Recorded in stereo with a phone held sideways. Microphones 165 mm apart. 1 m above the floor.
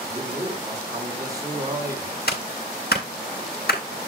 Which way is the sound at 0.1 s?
25° right (ahead or behind).